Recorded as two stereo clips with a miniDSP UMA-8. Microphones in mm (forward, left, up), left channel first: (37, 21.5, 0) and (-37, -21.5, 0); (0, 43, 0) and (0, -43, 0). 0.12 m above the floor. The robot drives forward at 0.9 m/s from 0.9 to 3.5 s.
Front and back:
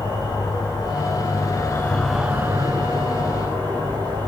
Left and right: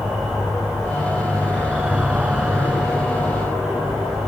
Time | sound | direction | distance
0.0 | an insect | 5° right | 1.2 m